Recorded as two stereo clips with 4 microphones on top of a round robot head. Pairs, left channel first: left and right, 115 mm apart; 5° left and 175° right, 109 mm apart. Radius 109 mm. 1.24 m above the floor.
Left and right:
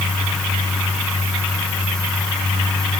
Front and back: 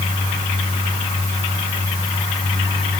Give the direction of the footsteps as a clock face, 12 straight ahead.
I don't hear footsteps.